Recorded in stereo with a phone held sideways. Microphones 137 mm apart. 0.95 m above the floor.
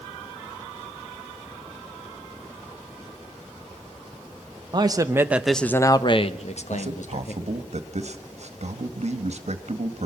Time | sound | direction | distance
4.7 | a man speaking | 35° right (ahead or behind) | 1.3 m
6.7 | a man speaking | 60° right (ahead or behind) | 1.8 m